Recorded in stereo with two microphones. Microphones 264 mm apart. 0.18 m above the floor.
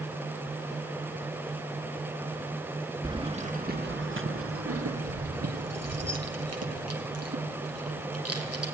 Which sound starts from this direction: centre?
Keys jangling, at 3.0 s.